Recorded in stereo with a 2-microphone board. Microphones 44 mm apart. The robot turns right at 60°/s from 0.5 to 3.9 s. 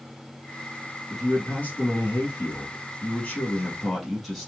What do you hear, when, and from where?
1.1 s a man speaking: 10° left, 2.5 m; by 4.5 s 175° left, 2.5 m